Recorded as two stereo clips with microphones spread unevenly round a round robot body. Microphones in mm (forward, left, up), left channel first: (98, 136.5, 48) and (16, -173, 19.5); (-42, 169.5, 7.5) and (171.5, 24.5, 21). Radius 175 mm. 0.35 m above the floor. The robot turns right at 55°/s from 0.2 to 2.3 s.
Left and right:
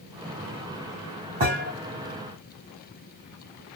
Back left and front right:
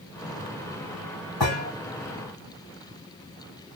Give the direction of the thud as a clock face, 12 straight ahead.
6 o'clock.